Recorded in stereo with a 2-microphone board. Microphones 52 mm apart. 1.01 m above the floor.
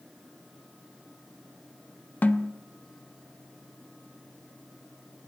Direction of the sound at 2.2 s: 35° left (ahead or behind).